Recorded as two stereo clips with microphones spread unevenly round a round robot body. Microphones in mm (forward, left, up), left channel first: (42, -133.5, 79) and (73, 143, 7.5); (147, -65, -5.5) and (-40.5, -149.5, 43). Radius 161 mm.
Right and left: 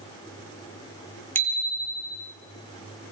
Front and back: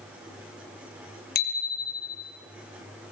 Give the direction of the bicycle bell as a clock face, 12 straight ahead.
12 o'clock.